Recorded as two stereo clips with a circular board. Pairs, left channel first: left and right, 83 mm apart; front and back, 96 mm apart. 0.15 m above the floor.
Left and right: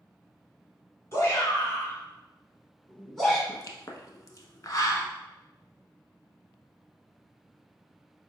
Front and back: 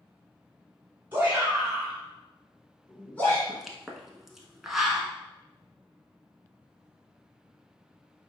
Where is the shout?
120° left, 1.5 m; by 3.4 s straight ahead, 1.2 m.